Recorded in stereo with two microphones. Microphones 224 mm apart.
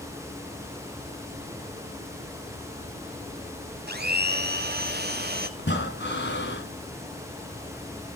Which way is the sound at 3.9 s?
45° right (ahead or behind).